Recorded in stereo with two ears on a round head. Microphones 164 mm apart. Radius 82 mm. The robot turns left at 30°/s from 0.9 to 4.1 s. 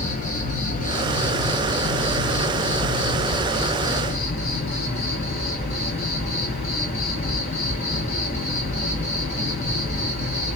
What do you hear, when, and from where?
0.0 s an insect: 135° left, 1.7 m; by 10.6 s 35° left, 1.7 m